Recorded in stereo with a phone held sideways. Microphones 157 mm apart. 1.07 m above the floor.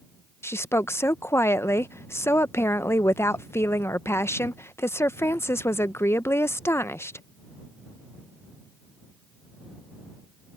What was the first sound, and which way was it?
A woman speaking, 15° left (ahead or behind).